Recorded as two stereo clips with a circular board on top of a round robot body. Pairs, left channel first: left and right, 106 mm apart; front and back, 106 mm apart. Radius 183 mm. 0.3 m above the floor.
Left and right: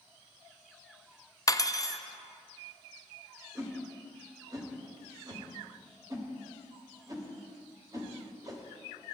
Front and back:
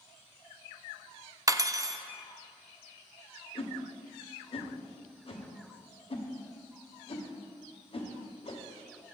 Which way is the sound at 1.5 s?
135° left.